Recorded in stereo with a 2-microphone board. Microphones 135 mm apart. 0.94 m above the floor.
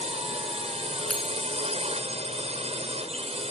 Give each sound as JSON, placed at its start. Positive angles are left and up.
{"t": 0.0, "sound": "a drone", "side_deg": -55}
{"t": 1.1, "sound": "a bell", "side_deg": 5}